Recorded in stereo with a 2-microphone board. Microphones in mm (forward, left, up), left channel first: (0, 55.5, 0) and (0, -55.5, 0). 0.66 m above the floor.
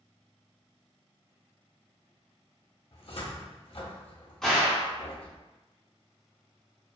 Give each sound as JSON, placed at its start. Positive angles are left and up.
{"t": 2.9, "sound": "a cupboard door", "side_deg": 65, "distance_m": 0.6}
{"t": 4.4, "sound": "a gunshot", "side_deg": 5, "distance_m": 0.8}